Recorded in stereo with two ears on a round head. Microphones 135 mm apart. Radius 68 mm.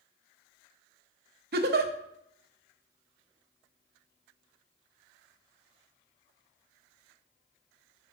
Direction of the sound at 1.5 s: 65° right (ahead or behind).